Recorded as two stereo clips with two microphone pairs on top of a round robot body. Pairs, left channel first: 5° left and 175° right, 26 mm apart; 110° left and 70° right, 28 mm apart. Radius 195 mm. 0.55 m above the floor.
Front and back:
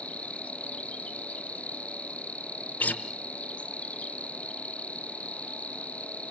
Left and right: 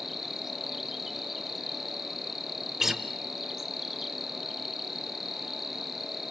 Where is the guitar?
15° left, 1.2 m.